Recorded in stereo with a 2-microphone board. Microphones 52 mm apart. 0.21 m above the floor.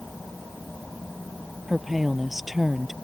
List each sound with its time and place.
1.7 s a woman speaking: 5° right (ahead or behind)